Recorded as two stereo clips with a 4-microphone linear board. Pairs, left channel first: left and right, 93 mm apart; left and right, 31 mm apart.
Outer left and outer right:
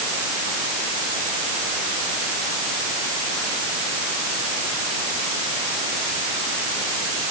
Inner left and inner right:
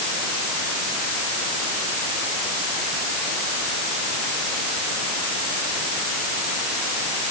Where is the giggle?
I don't hear a giggle.